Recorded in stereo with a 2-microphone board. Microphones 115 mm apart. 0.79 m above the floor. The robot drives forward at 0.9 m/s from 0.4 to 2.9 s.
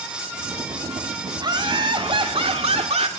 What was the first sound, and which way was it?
Laughter, 40° right (ahead or behind).